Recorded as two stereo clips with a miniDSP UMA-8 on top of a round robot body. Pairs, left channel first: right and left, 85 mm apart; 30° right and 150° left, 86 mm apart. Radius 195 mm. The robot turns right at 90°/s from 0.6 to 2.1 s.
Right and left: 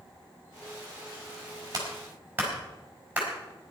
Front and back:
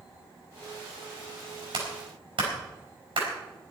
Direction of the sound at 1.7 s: 130° left.